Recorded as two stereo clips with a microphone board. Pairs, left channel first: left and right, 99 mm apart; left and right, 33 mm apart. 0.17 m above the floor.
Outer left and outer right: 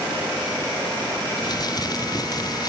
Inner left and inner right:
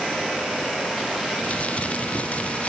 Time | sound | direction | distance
1.4 | crumpling | 45° left (ahead or behind) | ?